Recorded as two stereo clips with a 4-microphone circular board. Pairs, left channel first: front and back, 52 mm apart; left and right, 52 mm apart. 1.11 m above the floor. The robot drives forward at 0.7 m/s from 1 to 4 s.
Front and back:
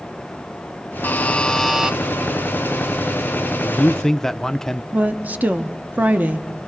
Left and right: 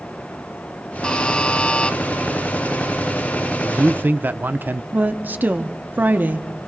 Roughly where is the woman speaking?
Behind right.